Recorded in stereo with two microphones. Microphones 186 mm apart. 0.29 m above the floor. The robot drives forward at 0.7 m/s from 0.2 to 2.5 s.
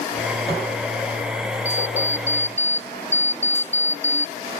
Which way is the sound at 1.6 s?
15° left (ahead or behind).